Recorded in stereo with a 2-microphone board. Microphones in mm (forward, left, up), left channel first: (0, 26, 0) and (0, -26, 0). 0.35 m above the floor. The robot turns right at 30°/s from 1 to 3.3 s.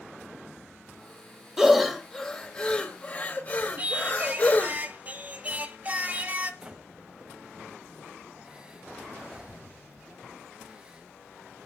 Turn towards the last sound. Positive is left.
turn(degrees=-20)  # may be behind; listen again after turning